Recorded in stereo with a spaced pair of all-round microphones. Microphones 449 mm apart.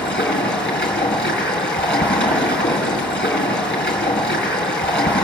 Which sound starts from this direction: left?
Running water, at 0.0 s.